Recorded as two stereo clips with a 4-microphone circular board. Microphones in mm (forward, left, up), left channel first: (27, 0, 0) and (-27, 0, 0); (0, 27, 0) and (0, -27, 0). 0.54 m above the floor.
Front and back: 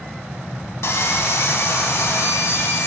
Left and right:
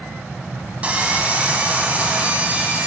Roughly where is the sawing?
Ahead right.